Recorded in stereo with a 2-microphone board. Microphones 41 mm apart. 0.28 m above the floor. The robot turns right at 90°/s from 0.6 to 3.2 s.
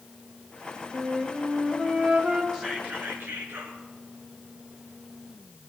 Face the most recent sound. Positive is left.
turn(degrees=-110)